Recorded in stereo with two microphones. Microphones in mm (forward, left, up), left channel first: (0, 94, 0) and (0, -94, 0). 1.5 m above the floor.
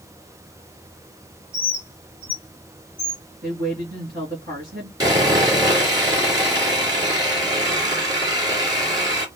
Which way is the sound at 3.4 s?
55° right (ahead or behind).